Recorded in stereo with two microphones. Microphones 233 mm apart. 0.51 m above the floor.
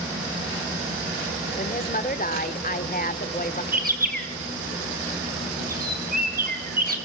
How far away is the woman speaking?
About 1.3 m.